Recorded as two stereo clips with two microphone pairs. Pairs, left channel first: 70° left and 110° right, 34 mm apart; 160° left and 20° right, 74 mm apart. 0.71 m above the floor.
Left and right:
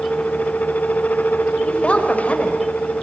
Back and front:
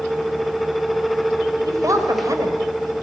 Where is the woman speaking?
15° left, 3.5 m.